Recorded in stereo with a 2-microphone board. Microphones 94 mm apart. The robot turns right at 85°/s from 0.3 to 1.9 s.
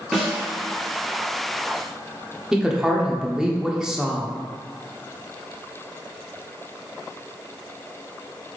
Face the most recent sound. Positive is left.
turn(degrees=-5)  # may be behind; listen again after turning